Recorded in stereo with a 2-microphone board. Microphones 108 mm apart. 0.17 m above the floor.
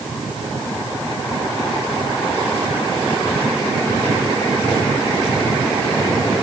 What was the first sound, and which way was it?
Only background noise.